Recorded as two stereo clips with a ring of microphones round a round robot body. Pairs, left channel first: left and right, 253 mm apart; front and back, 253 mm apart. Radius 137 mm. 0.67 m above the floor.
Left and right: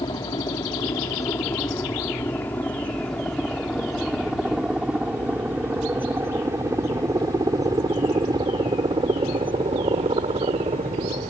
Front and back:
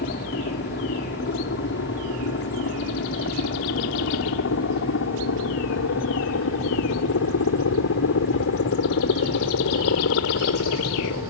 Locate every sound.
0.0 s a helicopter: 25° left; by 11.3 s 30° right